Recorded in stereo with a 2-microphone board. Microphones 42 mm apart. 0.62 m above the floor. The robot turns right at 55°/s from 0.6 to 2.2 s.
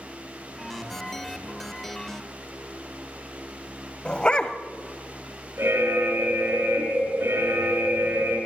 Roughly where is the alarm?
Right.